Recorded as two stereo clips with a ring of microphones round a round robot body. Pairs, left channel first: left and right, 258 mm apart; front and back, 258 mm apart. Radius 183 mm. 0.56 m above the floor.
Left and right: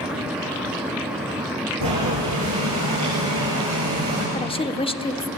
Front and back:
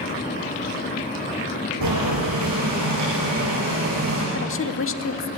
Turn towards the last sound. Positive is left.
turn(degrees=25)